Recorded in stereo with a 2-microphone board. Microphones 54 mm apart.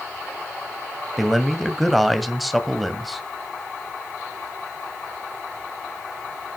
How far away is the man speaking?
About 1.7 m.